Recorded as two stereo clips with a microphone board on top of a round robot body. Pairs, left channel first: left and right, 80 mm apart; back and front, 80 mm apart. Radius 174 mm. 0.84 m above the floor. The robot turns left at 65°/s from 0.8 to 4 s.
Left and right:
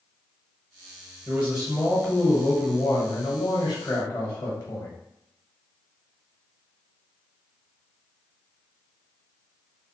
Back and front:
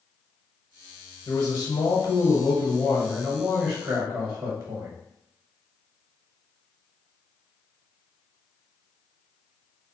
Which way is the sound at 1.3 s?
145° right.